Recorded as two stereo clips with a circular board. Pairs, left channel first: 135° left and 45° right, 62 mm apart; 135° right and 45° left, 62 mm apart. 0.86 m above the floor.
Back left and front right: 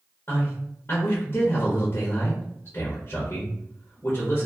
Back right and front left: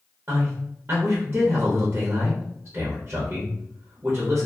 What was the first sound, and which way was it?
A man speaking, 95° left.